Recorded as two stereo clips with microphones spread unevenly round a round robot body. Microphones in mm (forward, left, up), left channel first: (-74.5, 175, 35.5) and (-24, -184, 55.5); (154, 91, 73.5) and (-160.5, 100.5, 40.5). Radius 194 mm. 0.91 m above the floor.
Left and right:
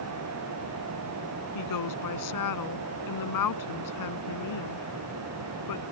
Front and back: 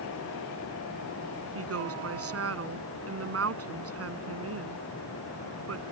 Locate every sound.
1.6 s a woman speaking: 135° left